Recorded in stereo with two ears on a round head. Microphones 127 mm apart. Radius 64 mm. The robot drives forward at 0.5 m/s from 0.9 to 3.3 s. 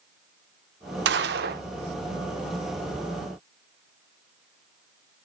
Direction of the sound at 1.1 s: 85° right.